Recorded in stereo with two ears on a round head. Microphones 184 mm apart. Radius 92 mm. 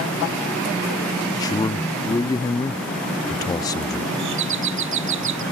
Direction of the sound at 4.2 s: 65° right (ahead or behind).